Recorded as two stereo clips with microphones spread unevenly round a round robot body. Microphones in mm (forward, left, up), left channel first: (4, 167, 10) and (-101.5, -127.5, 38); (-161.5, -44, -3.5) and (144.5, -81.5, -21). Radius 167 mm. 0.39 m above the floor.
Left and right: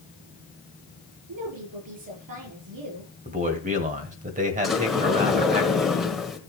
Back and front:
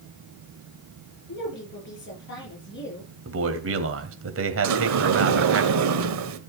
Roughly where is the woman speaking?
Behind right.